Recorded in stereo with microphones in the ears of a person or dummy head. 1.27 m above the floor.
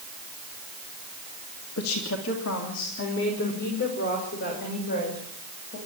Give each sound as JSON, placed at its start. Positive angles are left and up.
{"t": 1.8, "sound": "a woman speaking", "side_deg": 80, "distance_m": 2.5}